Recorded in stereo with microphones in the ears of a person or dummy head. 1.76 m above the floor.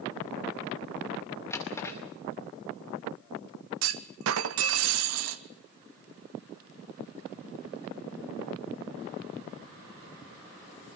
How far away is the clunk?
About 1.1 m.